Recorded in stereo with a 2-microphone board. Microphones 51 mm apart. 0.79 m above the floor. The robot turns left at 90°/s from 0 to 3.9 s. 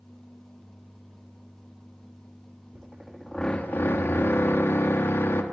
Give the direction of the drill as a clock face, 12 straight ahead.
5 o'clock.